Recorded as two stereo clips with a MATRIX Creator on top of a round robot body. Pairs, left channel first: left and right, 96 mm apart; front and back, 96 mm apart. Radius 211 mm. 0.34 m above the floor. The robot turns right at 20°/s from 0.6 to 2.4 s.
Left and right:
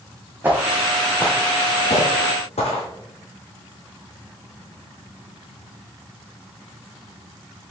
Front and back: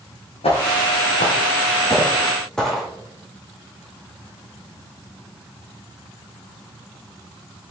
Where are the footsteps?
20° right, 1.4 m; by 2.9 s 90° left, 1.5 m.